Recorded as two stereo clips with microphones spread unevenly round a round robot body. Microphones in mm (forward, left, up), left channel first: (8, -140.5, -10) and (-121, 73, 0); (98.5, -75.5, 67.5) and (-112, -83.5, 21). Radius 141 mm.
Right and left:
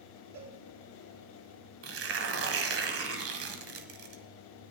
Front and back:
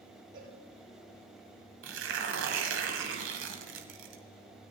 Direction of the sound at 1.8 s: 155° left.